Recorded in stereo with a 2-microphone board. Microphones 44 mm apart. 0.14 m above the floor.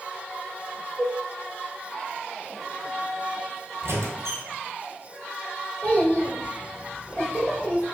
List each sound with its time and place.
1.0 s a cowbell: 20° right (ahead or behind), 0.9 m
3.8 s a squeak: 70° right (ahead or behind), 1.1 m
5.8 s a child speaking: 40° left (ahead or behind), 1.4 m